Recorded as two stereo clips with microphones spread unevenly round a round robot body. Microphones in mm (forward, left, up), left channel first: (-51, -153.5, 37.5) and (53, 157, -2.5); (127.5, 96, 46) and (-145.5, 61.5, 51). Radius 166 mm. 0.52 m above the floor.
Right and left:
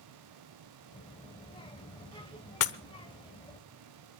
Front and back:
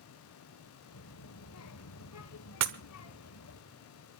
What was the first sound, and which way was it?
A child speaking, 30° right.